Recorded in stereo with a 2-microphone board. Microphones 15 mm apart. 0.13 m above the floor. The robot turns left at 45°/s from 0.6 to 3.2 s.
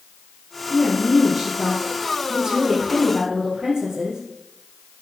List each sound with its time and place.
0.7 s a woman speaking: 30° left, 3 m; by 4.2 s 80° right, 3 m